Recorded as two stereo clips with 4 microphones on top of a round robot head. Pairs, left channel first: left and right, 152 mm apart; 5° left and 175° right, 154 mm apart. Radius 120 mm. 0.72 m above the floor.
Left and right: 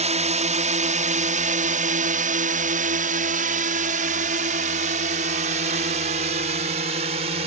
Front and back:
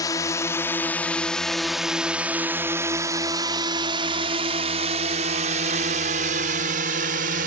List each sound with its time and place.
0.0 s a drone: 60° right; by 7.5 s 140° right